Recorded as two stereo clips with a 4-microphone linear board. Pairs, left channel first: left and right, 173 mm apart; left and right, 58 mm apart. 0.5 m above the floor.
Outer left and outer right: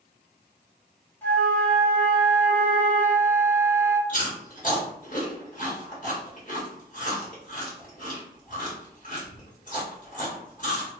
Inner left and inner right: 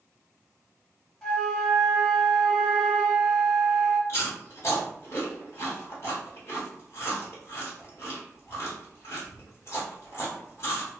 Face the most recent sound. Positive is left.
turn(degrees=50)  # may be behind; listen again after turning